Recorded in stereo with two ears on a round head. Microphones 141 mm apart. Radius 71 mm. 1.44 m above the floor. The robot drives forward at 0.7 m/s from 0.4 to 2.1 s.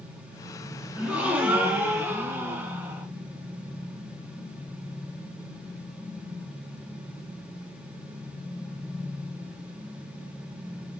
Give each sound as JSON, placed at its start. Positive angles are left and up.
{"t": 0.9, "sound": "a gasp", "side_deg": -10, "distance_m": 2.5}